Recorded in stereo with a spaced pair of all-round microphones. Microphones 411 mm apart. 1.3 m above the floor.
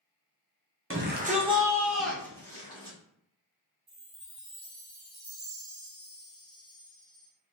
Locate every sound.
0.9 s a shout: 35° right (ahead or behind), 0.7 m; by 3.0 s 15° left (ahead or behind), 1.5 m
3.9 s a chime: 45° right (ahead or behind), 0.9 m